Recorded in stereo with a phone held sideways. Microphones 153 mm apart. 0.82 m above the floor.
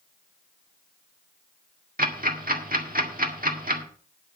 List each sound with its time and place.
2.0 s ticking: 70° right (ahead or behind), 1.7 m